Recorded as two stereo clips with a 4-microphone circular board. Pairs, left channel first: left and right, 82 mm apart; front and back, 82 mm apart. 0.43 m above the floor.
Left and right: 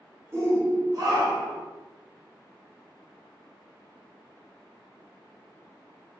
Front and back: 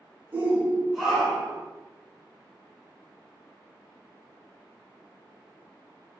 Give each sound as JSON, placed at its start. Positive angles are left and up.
{"t": 0.3, "sound": "a shout", "azimuth_deg": -125, "distance_m": 1.3}